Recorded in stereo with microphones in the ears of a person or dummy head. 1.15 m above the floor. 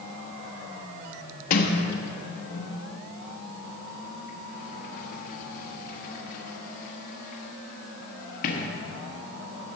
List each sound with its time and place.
1.5 s a sliding door: 50° left (ahead or behind), 1.4 m